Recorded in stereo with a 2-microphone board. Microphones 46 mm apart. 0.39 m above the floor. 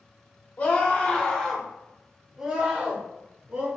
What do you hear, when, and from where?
0.6 s a scream: 40° left (ahead or behind), 1.3 m; by 3.7 s 45° right (ahead or behind), 1.5 m